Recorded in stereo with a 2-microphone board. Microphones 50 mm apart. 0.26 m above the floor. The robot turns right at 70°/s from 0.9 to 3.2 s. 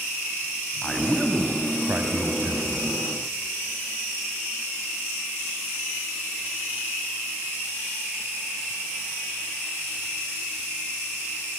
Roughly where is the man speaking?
Behind.